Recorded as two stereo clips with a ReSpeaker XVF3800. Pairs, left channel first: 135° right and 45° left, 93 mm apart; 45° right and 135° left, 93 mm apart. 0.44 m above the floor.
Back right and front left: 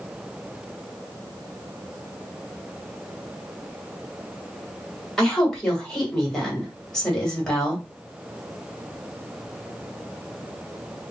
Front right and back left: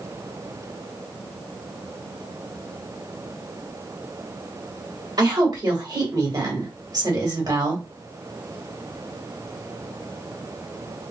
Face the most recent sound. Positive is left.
turn(degrees=140)